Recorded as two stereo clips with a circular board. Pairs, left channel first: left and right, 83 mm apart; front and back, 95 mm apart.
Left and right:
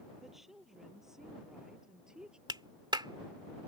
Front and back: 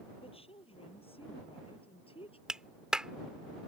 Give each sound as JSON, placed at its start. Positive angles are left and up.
{"t": 0.2, "sound": "a woman speaking", "azimuth_deg": -5}
{"t": 2.5, "sound": "a clap", "azimuth_deg": -100}